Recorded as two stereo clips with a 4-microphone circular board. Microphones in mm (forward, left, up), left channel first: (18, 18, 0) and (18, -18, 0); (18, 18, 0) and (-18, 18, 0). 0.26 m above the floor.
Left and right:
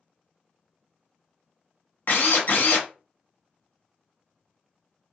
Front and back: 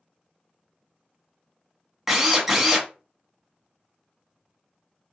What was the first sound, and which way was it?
A drill, 100° left.